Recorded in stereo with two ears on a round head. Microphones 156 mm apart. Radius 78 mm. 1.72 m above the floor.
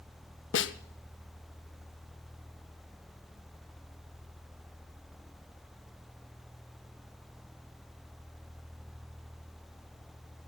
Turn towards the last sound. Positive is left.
turn(degrees=75)  # may be behind; listen again after turning